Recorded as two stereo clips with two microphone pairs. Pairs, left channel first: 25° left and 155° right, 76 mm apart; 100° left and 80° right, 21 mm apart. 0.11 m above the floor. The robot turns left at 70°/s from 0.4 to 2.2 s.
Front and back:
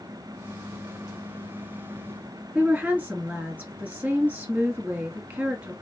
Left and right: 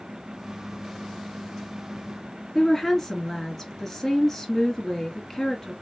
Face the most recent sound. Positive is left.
turn(degrees=150)